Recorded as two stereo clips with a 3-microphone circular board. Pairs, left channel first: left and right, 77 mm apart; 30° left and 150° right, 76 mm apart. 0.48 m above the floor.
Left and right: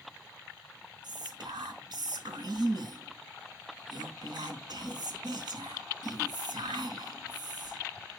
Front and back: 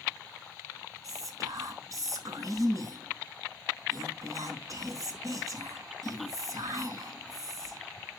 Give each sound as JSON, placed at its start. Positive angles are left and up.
{"t": 1.0, "sound": "whispering", "azimuth_deg": -110, "distance_m": 4.0}